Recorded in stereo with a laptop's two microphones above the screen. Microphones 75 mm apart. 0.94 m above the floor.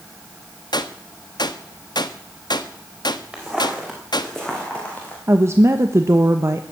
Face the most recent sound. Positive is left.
turn(degrees=-35)  # may be behind; listen again after turning